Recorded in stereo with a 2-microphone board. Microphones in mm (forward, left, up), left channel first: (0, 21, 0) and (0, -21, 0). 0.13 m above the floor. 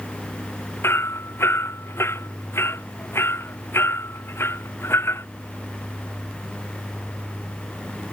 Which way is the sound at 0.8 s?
80° left.